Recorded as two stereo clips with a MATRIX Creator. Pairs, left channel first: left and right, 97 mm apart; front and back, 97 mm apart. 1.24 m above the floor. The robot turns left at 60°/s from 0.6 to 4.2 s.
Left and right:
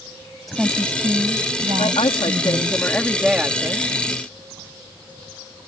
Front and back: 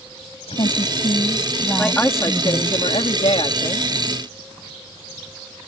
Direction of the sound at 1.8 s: 85° left.